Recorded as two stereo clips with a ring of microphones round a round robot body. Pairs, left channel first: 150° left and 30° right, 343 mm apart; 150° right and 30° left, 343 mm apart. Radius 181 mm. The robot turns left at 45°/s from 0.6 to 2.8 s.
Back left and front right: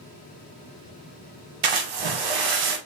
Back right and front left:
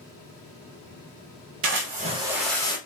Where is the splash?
25° right, 1.0 m; by 2.8 s 75° right, 1.0 m.